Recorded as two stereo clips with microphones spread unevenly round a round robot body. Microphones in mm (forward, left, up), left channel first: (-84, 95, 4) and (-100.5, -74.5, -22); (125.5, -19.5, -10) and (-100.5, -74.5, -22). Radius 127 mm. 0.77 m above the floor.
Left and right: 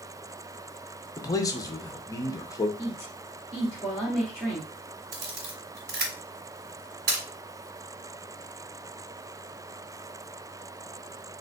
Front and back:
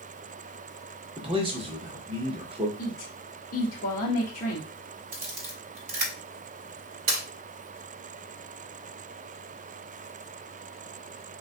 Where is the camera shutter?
115° right, 1.5 m.